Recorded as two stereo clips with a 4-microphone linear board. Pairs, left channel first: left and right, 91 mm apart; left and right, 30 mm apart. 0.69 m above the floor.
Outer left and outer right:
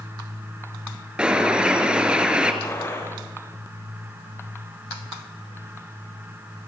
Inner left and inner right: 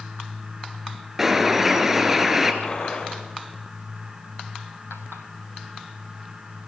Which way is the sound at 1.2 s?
10° right (ahead or behind).